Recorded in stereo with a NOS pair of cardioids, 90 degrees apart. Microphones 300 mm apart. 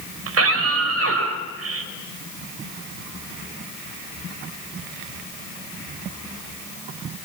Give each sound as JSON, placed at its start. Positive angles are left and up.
{"t": 0.3, "sound": "a scream", "azimuth_deg": -50, "distance_m": 5.5}